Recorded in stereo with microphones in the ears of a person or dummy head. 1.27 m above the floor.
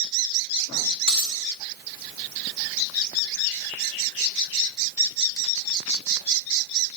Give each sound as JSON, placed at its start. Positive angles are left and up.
{"t": 1.1, "sound": "a dropped coin", "side_deg": 50, "distance_m": 1.1}